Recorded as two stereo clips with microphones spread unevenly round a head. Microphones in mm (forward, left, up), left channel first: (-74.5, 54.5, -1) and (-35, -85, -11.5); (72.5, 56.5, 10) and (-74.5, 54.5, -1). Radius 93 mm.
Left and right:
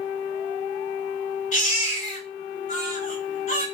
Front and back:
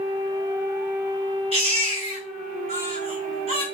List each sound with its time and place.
1.5 s a baby crying: 135° left, 1.4 m